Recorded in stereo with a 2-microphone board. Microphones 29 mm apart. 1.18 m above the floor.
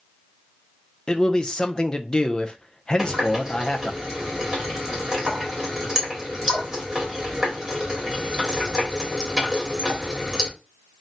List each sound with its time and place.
1.1 s a man speaking: 30° left (ahead or behind), 0.6 m
3.0 s a running tap: 15° right (ahead or behind), 1.6 m